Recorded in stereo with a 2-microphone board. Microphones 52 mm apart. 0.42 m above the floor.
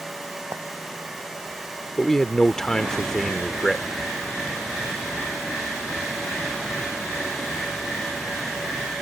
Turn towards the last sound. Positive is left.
turn(degrees=10)  # may be behind; listen again after turning